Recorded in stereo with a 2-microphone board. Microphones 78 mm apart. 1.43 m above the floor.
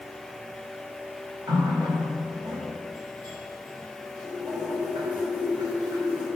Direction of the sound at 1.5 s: 70° right (ahead or behind).